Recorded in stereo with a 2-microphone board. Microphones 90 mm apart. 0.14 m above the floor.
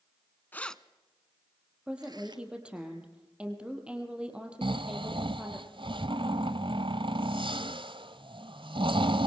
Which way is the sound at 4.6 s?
70° right (ahead or behind).